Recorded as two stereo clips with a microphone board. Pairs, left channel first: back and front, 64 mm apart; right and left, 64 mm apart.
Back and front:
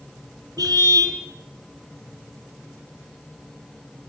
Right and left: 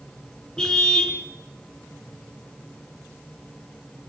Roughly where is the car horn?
Ahead.